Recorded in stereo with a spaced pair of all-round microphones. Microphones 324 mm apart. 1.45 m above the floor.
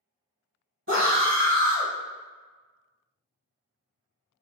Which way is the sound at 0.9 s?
40° right (ahead or behind).